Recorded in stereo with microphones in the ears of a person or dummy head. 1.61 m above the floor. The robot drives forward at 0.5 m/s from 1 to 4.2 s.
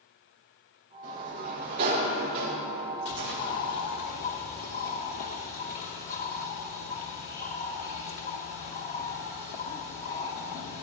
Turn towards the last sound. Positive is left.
turn(degrees=45)  # may be behind; listen again after turning